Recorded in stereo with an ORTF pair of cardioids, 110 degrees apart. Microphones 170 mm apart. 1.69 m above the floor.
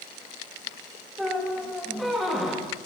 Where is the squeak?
Straight ahead, 2 m.